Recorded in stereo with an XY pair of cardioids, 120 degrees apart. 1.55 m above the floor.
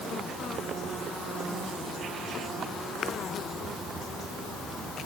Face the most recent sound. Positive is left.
No sound to turn to.